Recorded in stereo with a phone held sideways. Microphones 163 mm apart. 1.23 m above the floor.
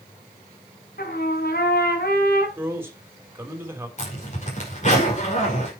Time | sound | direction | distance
1.0 | a trumpet | 75° left (ahead or behind) | 3.5 m
2.6 | a man speaking | 15° right (ahead or behind) | 3.5 m
4.0 | a zipper | 50° left (ahead or behind) | 5 m